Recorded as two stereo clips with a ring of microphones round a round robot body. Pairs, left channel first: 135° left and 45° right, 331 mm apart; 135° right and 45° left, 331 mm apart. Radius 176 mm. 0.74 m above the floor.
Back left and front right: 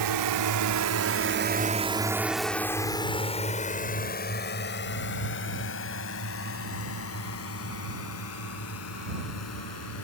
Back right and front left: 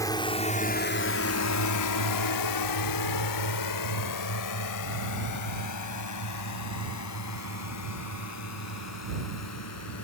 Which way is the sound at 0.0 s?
55° right.